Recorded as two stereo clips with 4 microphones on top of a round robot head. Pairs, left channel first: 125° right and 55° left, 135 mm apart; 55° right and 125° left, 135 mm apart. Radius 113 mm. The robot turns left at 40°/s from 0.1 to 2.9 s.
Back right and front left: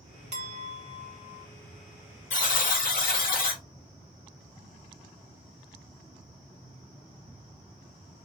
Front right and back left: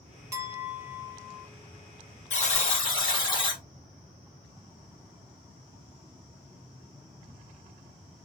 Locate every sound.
0.3 s a clink: 65° left, 0.6 m; by 1.5 s 20° left, 0.6 m
2.3 s a buzzer: 90° right, 1.6 m; by 3.6 s 115° right, 1.6 m